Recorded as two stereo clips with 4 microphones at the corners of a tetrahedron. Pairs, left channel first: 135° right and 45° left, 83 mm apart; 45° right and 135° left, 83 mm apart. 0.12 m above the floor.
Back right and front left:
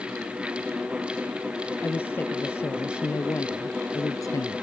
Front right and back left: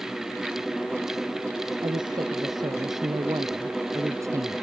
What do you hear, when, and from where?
1.8 s a woman speaking: 160° left; by 4.6 s 175° right